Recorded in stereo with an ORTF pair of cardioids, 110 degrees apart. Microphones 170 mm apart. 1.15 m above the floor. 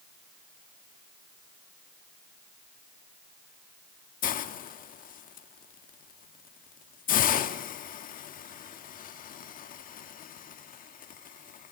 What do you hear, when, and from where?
4.2 s a hiss: 55° left, 1.6 m